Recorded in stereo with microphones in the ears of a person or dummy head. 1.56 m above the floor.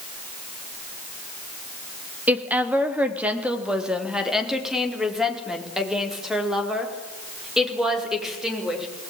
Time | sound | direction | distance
2.3 | a woman speaking | 10° right (ahead or behind) | 2.5 m